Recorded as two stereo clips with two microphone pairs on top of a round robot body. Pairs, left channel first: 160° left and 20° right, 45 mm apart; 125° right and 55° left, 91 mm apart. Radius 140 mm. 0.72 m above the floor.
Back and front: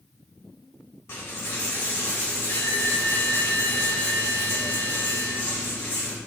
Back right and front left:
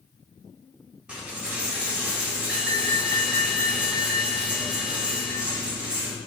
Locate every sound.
1.1 s a dropped coin: 135° left, 0.6 m